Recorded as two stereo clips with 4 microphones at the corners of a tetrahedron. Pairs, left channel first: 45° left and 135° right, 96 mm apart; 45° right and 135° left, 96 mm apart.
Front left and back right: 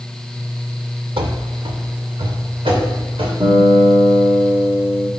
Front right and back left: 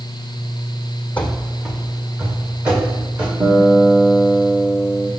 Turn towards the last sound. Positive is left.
turn(degrees=-160)